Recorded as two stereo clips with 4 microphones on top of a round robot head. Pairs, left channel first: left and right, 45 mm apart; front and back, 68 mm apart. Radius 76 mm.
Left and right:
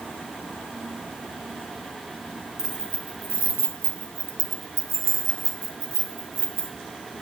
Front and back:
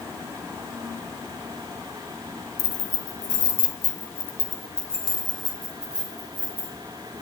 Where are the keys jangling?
10° right, 1.2 m; by 6.8 s 105° right, 2 m.